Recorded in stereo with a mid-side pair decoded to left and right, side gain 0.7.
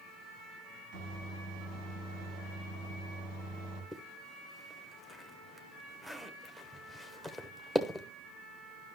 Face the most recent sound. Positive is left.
turn(degrees=-5)